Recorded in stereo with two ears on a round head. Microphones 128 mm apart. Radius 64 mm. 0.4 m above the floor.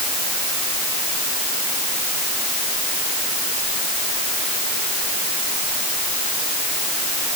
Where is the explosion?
I don't hear an explosion.